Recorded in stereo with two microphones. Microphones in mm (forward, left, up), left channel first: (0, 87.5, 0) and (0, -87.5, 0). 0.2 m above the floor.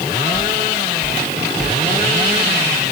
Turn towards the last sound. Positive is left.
turn(degrees=-30)  # may be behind; listen again after turning